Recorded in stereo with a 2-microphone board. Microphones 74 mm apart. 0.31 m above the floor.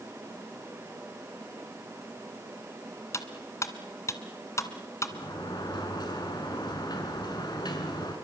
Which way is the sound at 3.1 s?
40° left (ahead or behind).